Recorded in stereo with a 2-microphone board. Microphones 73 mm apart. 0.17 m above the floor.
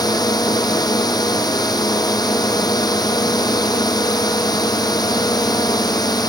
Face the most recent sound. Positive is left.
turn(degrees=60)  # may be behind; listen again after turning